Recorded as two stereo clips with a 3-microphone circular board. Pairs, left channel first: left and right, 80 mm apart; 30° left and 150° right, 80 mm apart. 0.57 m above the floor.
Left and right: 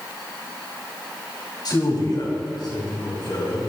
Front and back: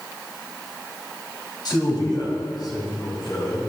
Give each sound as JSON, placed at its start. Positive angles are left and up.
{"t": 1.6, "sound": "a man speaking", "azimuth_deg": 60, "distance_m": 3.5}